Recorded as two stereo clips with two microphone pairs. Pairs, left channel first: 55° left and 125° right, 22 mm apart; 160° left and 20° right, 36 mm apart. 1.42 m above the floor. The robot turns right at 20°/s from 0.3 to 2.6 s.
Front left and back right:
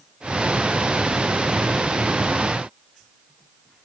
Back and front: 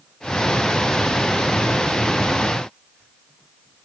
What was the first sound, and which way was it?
Only background noise.